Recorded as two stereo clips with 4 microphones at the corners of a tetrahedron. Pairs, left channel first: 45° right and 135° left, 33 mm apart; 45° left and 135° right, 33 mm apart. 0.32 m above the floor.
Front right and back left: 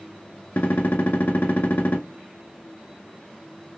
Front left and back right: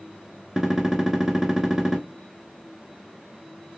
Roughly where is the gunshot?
Ahead right.